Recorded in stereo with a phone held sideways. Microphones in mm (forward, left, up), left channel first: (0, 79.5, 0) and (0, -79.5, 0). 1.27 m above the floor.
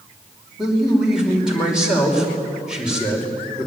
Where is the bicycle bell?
I don't hear a bicycle bell.